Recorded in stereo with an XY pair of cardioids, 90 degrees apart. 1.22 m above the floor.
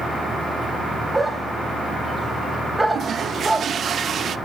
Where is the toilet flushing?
55° right, 0.7 m.